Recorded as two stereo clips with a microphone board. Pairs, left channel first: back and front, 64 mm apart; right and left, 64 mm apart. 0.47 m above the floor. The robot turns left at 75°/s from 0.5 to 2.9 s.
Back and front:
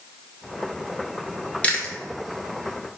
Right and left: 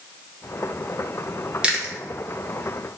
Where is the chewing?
150° left, 0.5 m; by 1.9 s 125° left, 0.5 m.